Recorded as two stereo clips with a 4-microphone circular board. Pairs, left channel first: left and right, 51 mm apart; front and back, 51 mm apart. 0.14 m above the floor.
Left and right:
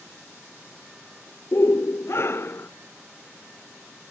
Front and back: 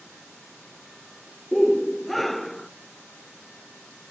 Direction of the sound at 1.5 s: 90° left.